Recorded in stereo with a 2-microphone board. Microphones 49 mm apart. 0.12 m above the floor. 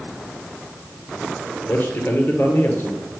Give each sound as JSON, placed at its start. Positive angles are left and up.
{"t": 1.6, "sound": "a man speaking", "side_deg": 50, "distance_m": 1.8}